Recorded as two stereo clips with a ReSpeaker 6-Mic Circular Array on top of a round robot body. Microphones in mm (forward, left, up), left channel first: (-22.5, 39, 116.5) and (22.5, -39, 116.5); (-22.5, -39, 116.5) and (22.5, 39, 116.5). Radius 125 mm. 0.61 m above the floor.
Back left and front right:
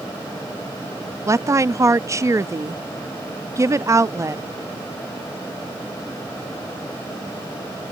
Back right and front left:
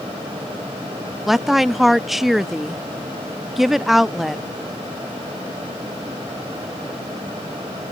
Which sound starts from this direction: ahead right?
A woman speaking, at 1.3 s.